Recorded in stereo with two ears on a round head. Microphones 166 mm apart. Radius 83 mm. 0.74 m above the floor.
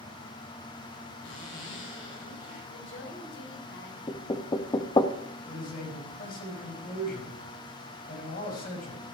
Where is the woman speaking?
75° left (ahead or behind), 3.5 m.